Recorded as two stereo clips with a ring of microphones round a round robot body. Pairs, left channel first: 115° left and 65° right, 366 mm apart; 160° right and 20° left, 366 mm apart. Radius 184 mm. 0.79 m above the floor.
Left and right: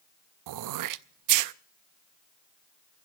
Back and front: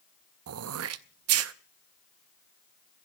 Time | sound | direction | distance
0.5 | throat clearing | 30° right | 0.5 m